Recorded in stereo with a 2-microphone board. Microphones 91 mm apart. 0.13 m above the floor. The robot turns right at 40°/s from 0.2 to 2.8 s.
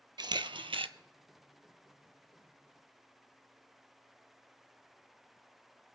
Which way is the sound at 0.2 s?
50° right (ahead or behind).